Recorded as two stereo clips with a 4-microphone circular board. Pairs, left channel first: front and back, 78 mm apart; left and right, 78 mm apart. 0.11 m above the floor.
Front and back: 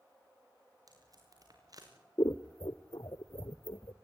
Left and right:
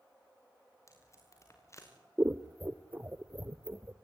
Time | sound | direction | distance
0.9 | tape being pulled | 140° left | 6 m
2.2 | scissors | 25° right | 1.1 m